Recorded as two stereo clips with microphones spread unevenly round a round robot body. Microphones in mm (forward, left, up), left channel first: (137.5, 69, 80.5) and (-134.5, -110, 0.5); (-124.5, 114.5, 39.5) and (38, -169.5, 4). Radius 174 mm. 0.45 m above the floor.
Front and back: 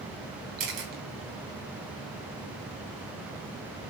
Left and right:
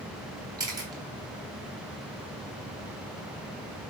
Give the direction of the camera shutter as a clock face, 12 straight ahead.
5 o'clock.